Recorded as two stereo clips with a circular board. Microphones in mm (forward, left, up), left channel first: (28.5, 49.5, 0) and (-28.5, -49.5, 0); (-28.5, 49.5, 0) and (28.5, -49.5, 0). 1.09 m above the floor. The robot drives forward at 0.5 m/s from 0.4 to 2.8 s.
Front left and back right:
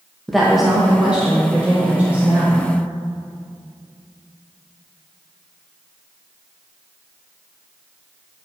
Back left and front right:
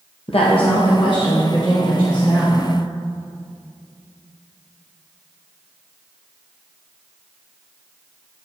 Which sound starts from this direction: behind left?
A woman speaking, at 0.3 s.